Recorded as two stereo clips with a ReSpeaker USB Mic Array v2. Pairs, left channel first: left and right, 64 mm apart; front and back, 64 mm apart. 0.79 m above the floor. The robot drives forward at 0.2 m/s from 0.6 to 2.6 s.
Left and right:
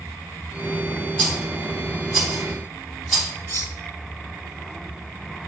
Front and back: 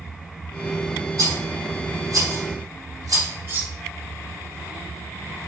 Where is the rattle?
175° left, 2.5 m.